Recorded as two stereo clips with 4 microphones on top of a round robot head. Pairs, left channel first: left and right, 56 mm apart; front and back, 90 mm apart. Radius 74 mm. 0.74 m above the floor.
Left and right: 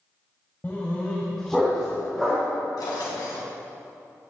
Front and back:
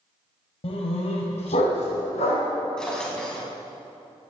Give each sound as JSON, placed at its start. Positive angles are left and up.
{"t": 0.6, "sound": "a dog barking", "azimuth_deg": 20, "distance_m": 1.8}
{"t": 2.8, "sound": "a drawer", "azimuth_deg": 85, "distance_m": 3.5}